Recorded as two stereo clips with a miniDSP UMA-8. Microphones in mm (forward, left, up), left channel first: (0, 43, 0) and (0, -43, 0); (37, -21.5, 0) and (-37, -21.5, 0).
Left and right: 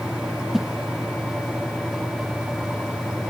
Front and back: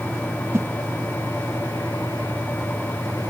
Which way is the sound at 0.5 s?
175° right.